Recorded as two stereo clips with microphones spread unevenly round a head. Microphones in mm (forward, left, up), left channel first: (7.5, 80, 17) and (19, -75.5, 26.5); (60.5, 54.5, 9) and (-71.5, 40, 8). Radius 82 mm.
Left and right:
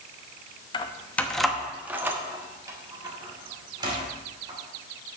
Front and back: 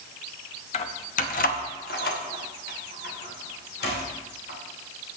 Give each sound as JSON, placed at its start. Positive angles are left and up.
{"t": 0.7, "sound": "keys jangling", "azimuth_deg": 35, "distance_m": 0.7}